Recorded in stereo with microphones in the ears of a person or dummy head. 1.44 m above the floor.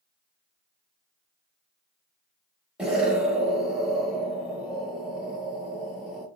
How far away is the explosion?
About 1.1 m.